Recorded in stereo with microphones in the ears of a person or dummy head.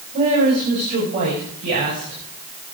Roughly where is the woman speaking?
Right.